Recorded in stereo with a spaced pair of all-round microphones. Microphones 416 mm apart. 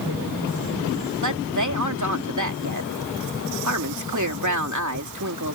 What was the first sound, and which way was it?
A woman speaking, 45° right (ahead or behind).